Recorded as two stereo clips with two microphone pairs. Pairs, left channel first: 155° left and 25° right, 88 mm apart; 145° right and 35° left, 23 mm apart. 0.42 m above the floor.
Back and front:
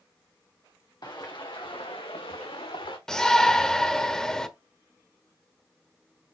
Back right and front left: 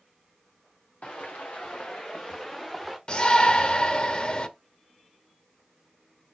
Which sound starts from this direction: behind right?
A shout, at 3.1 s.